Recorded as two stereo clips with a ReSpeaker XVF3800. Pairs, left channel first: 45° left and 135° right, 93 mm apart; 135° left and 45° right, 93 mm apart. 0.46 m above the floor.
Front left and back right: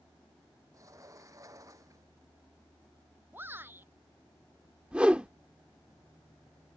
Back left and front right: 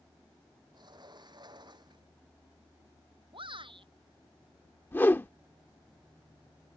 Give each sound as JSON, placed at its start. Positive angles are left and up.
{"t": 0.7, "sound": "a sliding door", "azimuth_deg": -80}
{"t": 3.3, "sound": "a shout", "azimuth_deg": -70}
{"t": 4.9, "sound": "a whoosh", "azimuth_deg": 165}